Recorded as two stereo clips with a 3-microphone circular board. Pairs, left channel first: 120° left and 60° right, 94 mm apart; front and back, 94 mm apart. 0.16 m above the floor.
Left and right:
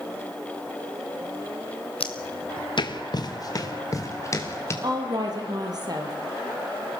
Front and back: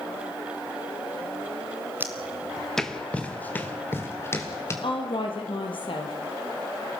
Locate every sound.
2.0 s footsteps: 110° left, 1.6 m; by 4.7 s 60° left, 4.5 m
4.8 s a woman speaking: 20° right, 4.5 m